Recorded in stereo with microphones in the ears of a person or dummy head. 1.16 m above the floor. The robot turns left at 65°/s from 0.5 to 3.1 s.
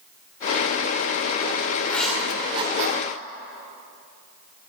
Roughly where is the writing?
Centre.